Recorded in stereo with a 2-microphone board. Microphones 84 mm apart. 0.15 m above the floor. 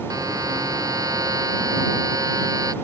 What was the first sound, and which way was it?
A buzzer, 45° right (ahead or behind).